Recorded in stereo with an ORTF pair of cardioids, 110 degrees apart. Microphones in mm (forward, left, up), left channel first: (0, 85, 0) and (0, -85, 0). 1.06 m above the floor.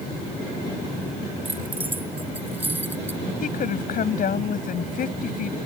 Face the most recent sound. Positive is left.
turn(degrees=50)